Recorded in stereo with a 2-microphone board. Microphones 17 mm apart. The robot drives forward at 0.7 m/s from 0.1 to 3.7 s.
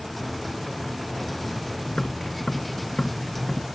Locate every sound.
1.9 s tapping: 70° left (ahead or behind); by 3.6 s 60° left (ahead or behind)